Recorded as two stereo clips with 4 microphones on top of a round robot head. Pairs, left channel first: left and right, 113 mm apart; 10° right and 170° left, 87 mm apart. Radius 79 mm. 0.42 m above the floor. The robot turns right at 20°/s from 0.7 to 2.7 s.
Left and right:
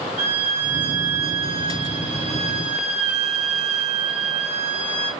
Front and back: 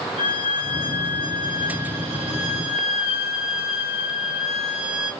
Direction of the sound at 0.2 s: 45° right.